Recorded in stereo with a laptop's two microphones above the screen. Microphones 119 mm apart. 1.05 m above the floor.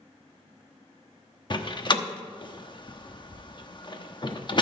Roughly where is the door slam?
Left.